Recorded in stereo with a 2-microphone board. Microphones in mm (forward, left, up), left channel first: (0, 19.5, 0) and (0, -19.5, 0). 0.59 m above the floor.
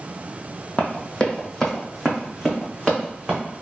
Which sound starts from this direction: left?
Running footsteps, at 0.8 s.